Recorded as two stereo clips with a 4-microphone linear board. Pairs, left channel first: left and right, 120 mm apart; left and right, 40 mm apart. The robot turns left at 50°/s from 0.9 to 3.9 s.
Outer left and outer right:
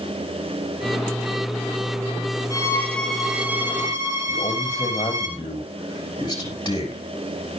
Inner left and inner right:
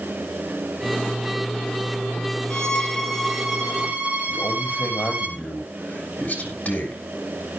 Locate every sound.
2.5 s a violin: 35° left, 2 m; by 5.3 s 35° right, 2 m
4.3 s a man speaking: 40° left (ahead or behind), 5.5 m